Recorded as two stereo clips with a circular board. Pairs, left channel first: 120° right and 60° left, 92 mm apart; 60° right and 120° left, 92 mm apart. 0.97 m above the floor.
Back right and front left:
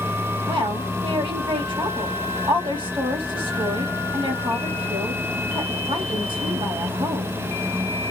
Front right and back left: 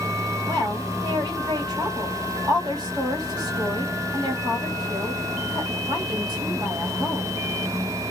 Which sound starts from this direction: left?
A woman speaking, at 0.5 s.